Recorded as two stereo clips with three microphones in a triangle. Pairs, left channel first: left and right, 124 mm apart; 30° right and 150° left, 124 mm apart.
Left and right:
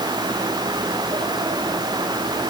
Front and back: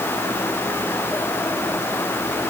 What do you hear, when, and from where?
Only background noise.